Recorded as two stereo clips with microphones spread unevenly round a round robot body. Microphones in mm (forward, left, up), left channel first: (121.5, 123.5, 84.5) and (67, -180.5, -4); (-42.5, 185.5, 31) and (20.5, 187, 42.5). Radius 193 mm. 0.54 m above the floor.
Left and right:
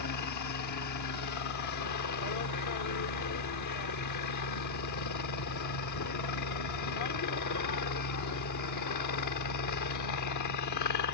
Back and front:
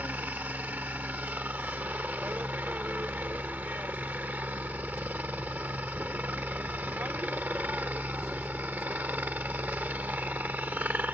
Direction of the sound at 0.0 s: 60° left.